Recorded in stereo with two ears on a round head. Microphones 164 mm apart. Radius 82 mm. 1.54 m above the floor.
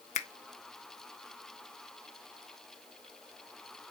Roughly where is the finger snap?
Left.